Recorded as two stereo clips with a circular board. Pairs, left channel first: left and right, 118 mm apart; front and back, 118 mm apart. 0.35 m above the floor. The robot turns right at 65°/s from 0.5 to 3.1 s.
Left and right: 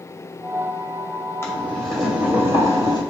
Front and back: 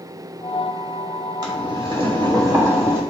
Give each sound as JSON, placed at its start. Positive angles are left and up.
{"t": 1.4, "sound": "boiling", "azimuth_deg": 145, "distance_m": 2.0}